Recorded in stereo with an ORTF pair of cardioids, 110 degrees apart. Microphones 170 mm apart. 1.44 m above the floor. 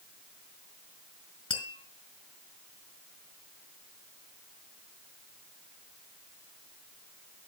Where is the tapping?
30° left, 4 m.